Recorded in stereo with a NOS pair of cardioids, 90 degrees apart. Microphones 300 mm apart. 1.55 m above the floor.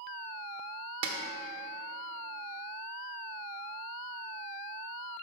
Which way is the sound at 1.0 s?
55° right.